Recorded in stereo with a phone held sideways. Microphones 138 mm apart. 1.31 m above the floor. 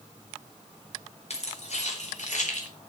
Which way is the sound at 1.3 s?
50° left (ahead or behind).